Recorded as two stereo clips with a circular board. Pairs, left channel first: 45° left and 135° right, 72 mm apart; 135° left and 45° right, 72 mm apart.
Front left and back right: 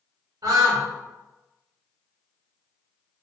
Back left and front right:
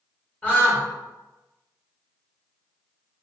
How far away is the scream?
About 1.8 m.